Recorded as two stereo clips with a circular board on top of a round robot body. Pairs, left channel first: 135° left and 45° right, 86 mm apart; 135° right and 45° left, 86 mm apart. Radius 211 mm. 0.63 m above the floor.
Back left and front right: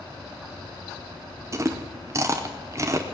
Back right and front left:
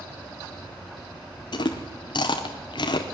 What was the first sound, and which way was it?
Chewing, 105° right.